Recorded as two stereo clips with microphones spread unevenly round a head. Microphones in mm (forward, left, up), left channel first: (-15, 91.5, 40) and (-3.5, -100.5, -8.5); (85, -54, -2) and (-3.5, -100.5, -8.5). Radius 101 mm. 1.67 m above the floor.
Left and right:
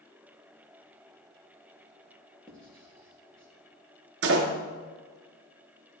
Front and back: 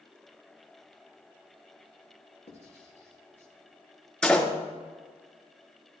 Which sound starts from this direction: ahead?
Writing, at 2.5 s.